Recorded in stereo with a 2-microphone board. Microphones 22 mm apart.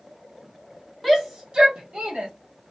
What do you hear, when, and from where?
1.0 s a shout: centre (ahead or behind), 0.7 m; by 2.3 s 55° right (ahead or behind), 1.4 m